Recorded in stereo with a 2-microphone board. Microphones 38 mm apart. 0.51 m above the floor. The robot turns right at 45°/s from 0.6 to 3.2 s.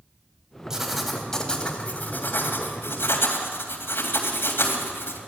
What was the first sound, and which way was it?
Writing, 10° right.